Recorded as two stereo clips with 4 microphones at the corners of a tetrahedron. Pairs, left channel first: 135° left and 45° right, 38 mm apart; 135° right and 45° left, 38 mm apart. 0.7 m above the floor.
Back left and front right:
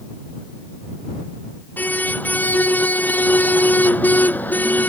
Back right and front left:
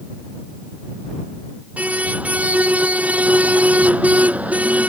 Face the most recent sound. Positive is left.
turn(degrees=95)